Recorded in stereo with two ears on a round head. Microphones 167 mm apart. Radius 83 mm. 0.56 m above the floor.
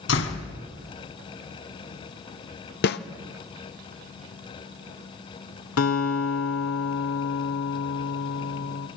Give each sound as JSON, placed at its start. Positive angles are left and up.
{"t": 0.1, "sound": "a door slam", "side_deg": 75, "distance_m": 3.5}
{"t": 2.8, "sound": "a snare drum", "side_deg": 55, "distance_m": 1.0}
{"t": 5.8, "sound": "a guitar", "side_deg": 85, "distance_m": 2.0}